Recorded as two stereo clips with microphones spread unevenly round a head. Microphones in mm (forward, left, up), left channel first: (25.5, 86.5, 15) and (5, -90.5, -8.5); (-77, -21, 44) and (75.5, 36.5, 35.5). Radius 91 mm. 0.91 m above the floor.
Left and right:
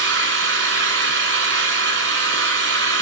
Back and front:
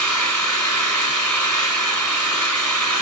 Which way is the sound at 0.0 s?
80° right.